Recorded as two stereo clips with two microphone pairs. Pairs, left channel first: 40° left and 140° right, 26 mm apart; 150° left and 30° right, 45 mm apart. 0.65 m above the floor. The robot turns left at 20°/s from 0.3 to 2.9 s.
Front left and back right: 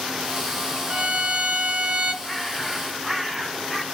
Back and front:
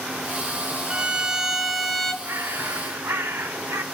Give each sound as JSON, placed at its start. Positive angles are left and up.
{"t": 0.9, "sound": "a violin", "azimuth_deg": -100, "distance_m": 2.0}
{"t": 2.2, "sound": "a bird", "azimuth_deg": -40, "distance_m": 1.2}